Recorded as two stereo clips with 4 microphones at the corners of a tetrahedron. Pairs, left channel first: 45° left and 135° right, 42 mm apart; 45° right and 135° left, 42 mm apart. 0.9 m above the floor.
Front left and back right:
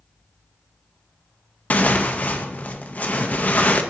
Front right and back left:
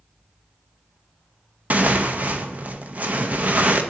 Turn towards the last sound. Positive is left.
turn(degrees=90)